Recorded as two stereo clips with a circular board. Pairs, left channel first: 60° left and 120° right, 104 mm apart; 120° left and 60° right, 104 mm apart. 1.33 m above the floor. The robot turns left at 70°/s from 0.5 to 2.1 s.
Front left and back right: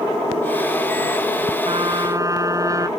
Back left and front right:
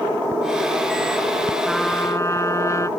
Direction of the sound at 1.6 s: 145° right.